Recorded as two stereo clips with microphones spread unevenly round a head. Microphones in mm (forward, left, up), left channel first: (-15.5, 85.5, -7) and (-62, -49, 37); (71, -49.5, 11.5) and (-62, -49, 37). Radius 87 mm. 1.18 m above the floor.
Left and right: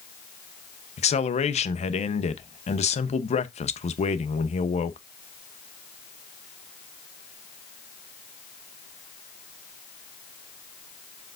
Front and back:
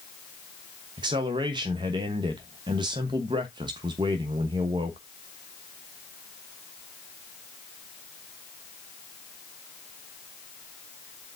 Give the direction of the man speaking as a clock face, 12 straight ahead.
8 o'clock.